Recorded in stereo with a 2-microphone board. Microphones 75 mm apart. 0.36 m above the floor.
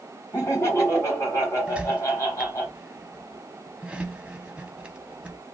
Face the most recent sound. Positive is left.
turn(degrees=-15)  # may be behind; listen again after turning